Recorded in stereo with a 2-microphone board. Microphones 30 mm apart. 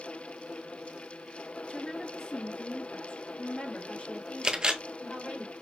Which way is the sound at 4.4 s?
30° right (ahead or behind).